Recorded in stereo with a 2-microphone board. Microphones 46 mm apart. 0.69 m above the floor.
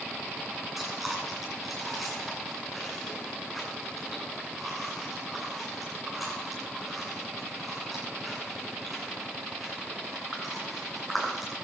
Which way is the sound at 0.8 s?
5° right (ahead or behind).